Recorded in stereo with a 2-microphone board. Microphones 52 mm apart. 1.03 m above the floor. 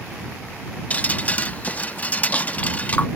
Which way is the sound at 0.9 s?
30° left (ahead or behind).